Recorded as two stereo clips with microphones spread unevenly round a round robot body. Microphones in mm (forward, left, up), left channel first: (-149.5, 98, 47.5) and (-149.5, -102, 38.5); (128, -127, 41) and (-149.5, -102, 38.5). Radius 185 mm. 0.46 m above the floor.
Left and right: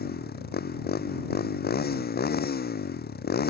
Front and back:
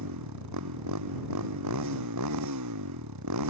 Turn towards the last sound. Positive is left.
turn(degrees=130)